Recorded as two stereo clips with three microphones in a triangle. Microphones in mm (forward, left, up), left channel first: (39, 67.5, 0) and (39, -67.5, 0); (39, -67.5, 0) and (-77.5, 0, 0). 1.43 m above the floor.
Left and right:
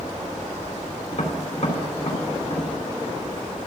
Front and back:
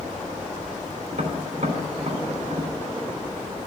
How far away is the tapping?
About 3 m.